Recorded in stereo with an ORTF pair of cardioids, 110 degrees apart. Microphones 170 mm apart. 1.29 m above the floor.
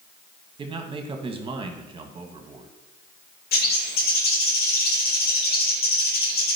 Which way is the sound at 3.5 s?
65° left.